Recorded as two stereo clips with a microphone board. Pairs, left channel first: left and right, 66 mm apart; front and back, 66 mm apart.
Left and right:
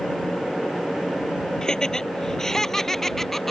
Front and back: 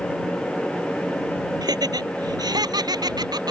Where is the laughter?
170° left; by 3.5 s 175° left.